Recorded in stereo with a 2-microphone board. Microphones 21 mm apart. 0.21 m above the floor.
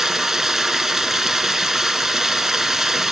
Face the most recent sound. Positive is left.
turn(degrees=-15)  # may be behind; listen again after turning